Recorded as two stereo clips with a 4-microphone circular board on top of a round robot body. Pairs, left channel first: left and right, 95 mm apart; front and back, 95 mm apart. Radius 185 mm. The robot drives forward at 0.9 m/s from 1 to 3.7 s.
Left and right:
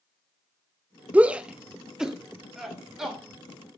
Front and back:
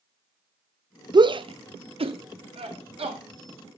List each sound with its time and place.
1.1 s a shout: 160° right, 0.6 m; by 3.2 s 175° right, 2.5 m